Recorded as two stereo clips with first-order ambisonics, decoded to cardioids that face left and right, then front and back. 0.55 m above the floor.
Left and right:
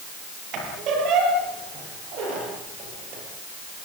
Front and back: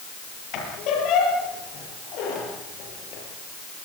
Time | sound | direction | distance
0.5 | a squeak | 45° right | 8 m